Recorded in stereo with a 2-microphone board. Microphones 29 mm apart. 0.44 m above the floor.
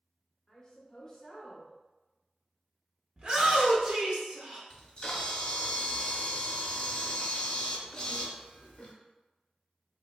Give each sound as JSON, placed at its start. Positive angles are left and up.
{"t": 0.5, "sound": "a woman speaking", "side_deg": 25, "distance_m": 0.9}
{"t": 3.2, "sound": "a shout", "side_deg": -30, "distance_m": 0.8}
{"t": 4.7, "sound": "a camera shutter", "side_deg": 35, "distance_m": 0.8}